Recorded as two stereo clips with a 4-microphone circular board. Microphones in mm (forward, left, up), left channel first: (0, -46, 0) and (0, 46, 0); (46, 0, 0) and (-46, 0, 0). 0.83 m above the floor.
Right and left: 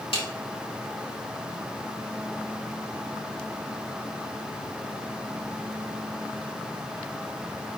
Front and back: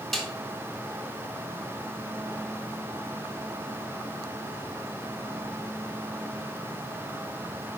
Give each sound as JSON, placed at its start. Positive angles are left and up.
{"t": 0.1, "sound": "a snare drum", "azimuth_deg": -85, "distance_m": 2.5}